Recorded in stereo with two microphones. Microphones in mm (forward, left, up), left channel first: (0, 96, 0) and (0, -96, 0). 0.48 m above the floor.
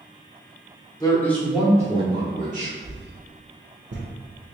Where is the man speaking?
20° left (ahead or behind), 0.9 m; by 2.7 s 40° right (ahead or behind), 1.1 m.